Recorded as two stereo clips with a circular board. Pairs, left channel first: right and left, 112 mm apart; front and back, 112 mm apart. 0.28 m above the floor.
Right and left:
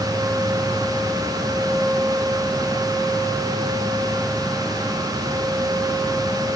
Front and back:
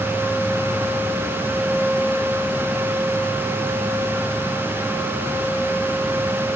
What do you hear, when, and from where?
Only background noise.